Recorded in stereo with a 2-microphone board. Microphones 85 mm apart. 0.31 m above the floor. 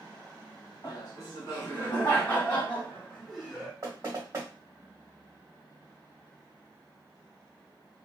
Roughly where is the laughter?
Left.